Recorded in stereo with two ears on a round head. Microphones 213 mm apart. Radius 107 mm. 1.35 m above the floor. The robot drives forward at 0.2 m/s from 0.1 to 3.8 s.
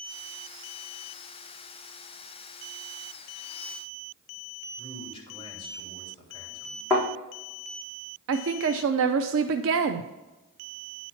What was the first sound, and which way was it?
A man speaking, 20° left (ahead or behind).